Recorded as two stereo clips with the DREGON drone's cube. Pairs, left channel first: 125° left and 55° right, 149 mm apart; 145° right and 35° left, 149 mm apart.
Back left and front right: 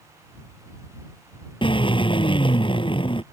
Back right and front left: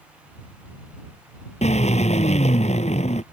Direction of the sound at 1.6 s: 175° left.